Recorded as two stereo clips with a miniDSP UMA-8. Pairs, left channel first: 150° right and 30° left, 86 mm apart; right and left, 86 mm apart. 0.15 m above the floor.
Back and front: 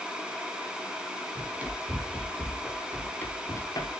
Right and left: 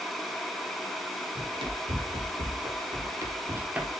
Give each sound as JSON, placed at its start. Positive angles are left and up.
{"t": 1.4, "sound": "running footsteps", "azimuth_deg": 100, "distance_m": 3.5}